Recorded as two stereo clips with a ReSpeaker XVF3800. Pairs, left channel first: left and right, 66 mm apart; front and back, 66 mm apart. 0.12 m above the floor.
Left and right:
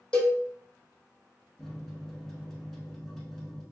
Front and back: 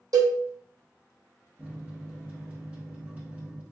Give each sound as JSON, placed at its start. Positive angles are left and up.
{"t": 0.1, "sound": "a cowbell", "azimuth_deg": 165, "distance_m": 0.8}
{"t": 1.6, "sound": "a microwave", "azimuth_deg": 165, "distance_m": 0.8}